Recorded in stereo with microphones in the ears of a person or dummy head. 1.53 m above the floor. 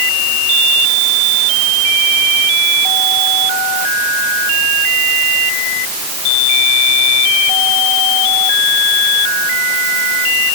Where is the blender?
No blender in this recording.